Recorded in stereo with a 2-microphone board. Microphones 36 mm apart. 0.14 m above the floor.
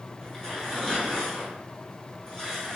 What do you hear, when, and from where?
0.2 s tearing paper: 15° left (ahead or behind), 1.5 m